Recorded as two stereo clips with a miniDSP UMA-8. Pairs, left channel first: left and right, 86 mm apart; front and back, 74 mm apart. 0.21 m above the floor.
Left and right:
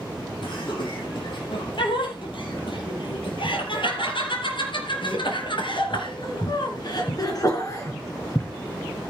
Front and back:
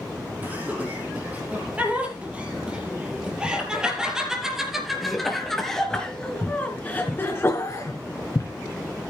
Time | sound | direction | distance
0.4 | laughter | 115° left | 7 m